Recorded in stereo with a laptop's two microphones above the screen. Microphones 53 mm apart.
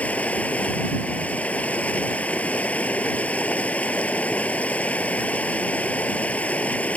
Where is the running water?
30° left (ahead or behind).